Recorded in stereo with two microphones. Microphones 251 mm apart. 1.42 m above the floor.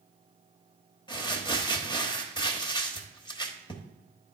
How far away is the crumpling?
About 1.0 m.